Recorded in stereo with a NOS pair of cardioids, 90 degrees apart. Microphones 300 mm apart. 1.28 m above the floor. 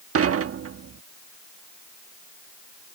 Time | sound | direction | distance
0.1 | dishes clattering | 50° right | ?